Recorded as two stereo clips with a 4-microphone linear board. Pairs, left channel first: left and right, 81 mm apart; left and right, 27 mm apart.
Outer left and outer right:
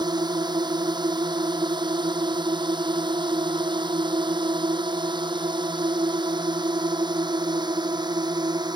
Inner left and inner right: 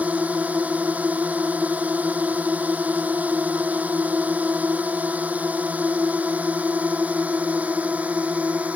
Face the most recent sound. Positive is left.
turn(degrees=-65)  # may be behind; listen again after turning